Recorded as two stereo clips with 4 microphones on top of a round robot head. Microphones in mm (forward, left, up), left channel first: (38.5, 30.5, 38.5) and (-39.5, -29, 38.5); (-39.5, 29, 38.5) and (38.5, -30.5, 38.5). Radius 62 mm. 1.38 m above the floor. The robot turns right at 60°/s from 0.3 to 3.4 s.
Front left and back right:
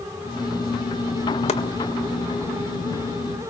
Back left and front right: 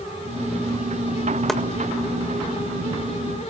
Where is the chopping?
55° left, 1.6 m; by 1.6 s 65° left, 1.6 m.